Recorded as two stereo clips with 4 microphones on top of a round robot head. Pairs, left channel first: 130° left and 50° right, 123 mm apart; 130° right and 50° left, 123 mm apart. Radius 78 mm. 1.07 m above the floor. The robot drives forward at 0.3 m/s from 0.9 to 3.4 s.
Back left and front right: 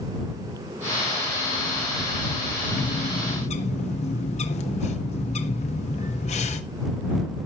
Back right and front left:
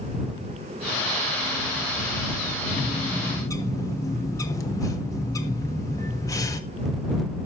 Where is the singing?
No singing in this recording.